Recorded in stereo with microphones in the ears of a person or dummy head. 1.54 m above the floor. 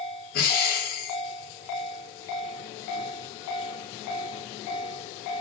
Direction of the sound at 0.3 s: 55° left (ahead or behind).